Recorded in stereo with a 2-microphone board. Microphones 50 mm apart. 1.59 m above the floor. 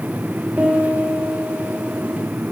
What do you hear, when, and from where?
0.6 s a piano: 45° right (ahead or behind), 2 m